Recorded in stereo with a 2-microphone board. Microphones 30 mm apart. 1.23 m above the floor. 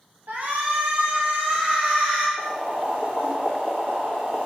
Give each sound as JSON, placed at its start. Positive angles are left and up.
{"t": 0.3, "sound": "a shout", "side_deg": -75, "distance_m": 1.9}
{"t": 2.4, "sound": "boiling", "side_deg": -85, "distance_m": 1.8}